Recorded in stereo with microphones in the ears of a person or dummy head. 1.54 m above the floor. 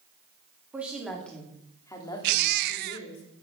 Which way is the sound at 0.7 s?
10° right (ahead or behind).